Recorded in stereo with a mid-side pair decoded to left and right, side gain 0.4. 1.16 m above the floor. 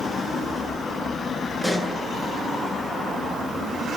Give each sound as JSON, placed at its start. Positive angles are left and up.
{"t": 1.6, "sound": "a pop", "azimuth_deg": 0, "distance_m": 9.5}